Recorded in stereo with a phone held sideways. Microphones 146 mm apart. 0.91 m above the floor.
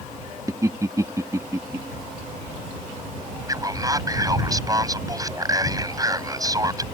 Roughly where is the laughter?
Right.